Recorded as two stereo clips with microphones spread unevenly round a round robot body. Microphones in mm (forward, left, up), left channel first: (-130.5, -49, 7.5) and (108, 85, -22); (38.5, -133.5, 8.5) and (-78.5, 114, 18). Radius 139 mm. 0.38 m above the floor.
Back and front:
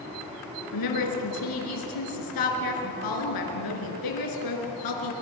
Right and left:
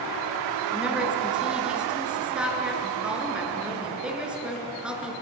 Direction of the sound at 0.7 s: 160° right.